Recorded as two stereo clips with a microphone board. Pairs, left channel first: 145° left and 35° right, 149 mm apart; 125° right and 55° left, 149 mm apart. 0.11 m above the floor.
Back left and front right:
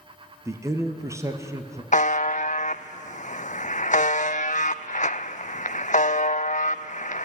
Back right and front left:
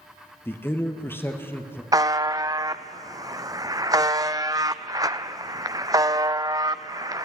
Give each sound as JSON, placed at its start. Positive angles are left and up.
{"t": 0.5, "sound": "a man speaking", "azimuth_deg": -70, "distance_m": 1.6}
{"t": 1.9, "sound": "a buzzer", "azimuth_deg": 120, "distance_m": 0.5}